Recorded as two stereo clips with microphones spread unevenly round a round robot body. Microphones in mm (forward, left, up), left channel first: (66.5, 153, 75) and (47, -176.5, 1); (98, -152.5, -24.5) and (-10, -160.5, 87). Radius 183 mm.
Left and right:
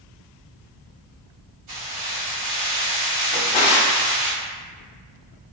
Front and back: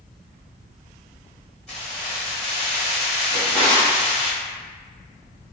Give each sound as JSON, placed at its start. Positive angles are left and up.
{"t": 1.7, "sound": "keys jangling", "azimuth_deg": -65, "distance_m": 1.8}
{"t": 3.3, "sound": "a drawer", "azimuth_deg": 85, "distance_m": 0.8}